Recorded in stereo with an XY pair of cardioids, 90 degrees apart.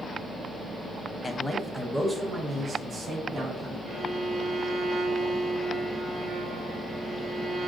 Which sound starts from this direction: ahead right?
A violin, at 3.9 s.